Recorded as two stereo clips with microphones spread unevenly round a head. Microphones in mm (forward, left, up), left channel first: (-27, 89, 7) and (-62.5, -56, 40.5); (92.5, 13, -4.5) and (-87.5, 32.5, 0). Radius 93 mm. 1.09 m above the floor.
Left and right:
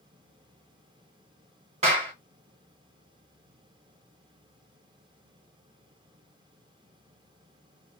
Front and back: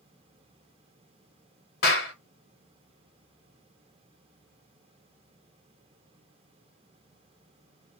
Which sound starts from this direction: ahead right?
A clap, at 1.8 s.